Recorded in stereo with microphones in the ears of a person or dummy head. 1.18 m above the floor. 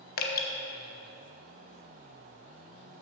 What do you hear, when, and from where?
0.2 s dripping: 50° left (ahead or behind), 0.9 m